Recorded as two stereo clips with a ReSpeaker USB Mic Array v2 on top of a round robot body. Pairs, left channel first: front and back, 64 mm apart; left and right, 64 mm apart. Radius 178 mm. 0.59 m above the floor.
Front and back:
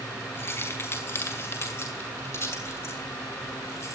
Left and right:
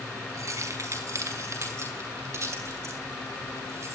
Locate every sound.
0.3 s keys jangling: 50° right, 5.5 m; by 4.0 s 40° right, 7.5 m